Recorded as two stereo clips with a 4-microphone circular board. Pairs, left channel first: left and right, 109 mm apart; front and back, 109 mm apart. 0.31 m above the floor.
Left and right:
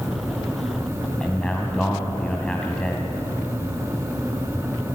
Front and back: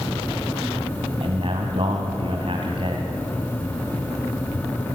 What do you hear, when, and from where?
1.2 s a man speaking: 170° left, 2 m